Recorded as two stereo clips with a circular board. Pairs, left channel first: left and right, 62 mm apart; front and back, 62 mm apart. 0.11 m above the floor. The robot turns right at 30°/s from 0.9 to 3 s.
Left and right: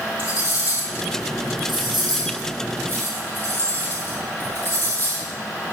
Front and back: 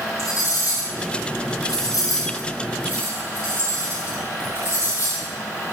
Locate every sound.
0.2 s cutlery clinking: 30° right, 2.5 m; by 5.3 s 35° left, 2.5 m